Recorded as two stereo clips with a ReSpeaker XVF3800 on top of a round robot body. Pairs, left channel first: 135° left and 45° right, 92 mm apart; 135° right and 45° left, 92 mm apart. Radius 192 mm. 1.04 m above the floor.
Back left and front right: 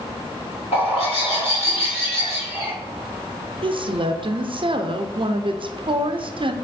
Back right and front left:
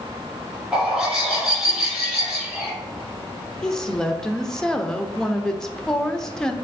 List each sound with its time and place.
0.7 s a bird: 130° left, 2.5 m
3.6 s a woman speaking: 50° right, 0.6 m